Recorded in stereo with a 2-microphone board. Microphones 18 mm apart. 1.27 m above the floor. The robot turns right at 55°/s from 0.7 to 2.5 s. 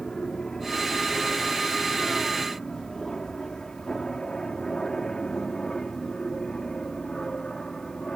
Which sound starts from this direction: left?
An aircraft, at 0.0 s.